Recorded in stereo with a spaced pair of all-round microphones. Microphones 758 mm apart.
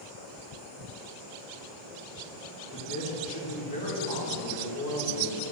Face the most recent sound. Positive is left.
turn(degrees=25)  # may be behind; listen again after turning